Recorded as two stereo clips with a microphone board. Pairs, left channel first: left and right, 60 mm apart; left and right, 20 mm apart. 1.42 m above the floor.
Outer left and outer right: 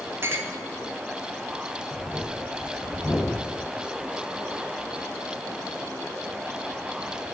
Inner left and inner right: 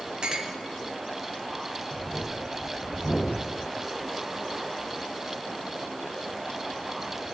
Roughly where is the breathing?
Left.